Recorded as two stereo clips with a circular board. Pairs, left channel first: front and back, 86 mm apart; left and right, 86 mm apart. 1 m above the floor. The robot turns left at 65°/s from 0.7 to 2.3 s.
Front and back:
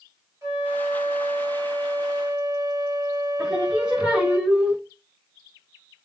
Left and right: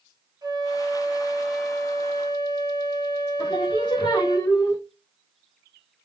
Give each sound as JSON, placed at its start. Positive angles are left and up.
{"t": 0.4, "sound": "a flute", "azimuth_deg": -125, "distance_m": 2.0}
{"t": 3.4, "sound": "singing", "azimuth_deg": 100, "distance_m": 1.4}